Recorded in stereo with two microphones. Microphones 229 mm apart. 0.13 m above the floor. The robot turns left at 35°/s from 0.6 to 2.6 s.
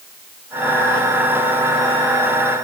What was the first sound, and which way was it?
Only background noise.